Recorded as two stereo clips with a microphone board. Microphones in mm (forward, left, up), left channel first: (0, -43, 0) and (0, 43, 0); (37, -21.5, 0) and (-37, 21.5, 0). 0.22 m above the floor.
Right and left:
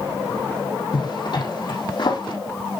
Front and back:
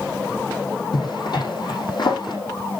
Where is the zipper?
65° right, 4.5 m.